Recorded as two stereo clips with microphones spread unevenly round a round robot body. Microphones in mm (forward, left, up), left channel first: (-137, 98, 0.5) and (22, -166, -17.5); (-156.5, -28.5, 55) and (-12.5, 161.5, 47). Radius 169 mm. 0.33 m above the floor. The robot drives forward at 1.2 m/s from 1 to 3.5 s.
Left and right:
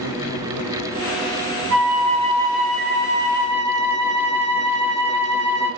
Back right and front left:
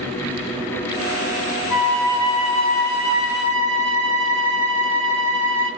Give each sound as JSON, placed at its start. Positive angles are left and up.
{"t": 1.7, "sound": "a flute", "azimuth_deg": -30, "distance_m": 1.1}